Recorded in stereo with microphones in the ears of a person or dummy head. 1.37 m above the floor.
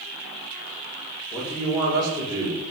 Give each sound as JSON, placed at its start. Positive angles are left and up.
{"t": 1.3, "sound": "a man speaking", "side_deg": 0, "distance_m": 3.5}